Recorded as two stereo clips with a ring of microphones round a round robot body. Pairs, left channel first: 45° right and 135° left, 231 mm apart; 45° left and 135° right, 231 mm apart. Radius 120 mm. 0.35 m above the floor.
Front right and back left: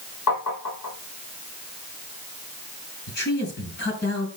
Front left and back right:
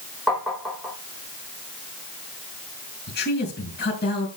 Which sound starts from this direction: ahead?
A man speaking, at 3.1 s.